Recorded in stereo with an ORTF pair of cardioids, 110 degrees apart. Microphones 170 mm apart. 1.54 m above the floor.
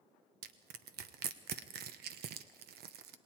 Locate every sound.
0.4 s crushing: 70° right, 1.1 m